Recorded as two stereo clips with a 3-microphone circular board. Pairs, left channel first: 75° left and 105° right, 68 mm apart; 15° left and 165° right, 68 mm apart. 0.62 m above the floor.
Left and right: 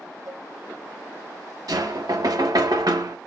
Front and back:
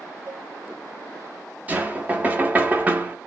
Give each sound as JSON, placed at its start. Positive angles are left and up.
{"t": 0.3, "sound": "a cowbell", "azimuth_deg": -115, "distance_m": 2.5}
{"t": 1.7, "sound": "knocking", "azimuth_deg": -100, "distance_m": 0.7}